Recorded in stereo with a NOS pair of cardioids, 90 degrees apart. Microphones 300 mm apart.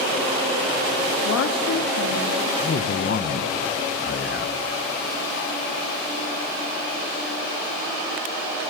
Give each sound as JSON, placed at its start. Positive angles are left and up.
{"t": 1.2, "sound": "a woman speaking", "azimuth_deg": 55, "distance_m": 3.0}
{"t": 2.6, "sound": "a man speaking", "azimuth_deg": 40, "distance_m": 1.5}